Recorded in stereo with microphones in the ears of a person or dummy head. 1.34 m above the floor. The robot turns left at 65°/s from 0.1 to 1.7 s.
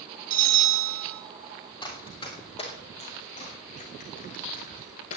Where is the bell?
45° right, 2 m; by 1.2 s 105° right, 2 m.